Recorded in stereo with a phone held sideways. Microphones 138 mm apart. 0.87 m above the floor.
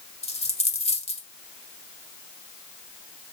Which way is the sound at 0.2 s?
50° left (ahead or behind).